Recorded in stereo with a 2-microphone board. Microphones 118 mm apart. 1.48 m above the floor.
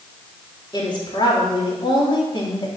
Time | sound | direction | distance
0.7 | a woman speaking | 40° left (ahead or behind) | 4 m